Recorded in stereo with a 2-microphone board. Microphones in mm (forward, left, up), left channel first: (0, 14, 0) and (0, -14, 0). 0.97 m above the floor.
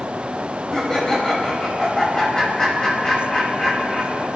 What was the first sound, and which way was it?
Laughter, 20° left (ahead or behind).